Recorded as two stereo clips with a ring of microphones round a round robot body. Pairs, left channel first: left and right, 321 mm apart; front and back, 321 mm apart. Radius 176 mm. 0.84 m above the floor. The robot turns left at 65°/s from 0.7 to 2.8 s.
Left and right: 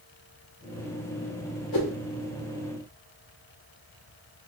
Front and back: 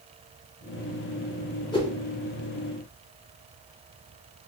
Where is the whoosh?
75° left, 2.0 m; by 1.9 s 65° left, 2.0 m.